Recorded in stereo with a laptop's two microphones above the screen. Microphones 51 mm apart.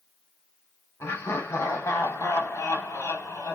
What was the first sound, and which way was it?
Laughter, 70° left (ahead or behind).